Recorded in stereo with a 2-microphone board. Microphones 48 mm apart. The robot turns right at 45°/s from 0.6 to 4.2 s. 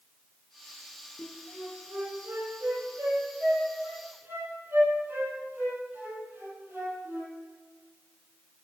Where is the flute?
5° right (ahead or behind), 4.5 m; by 7.3 s 40° right (ahead or behind), 4.5 m.